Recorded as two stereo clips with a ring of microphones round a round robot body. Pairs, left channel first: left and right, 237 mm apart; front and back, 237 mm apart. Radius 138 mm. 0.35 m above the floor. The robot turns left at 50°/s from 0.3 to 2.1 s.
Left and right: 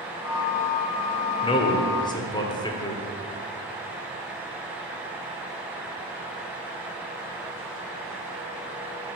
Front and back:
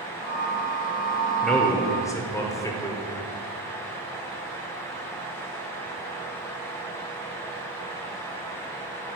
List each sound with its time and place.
1.4 s a man speaking: 85° left, 0.9 m; by 3.0 s 55° left, 0.9 m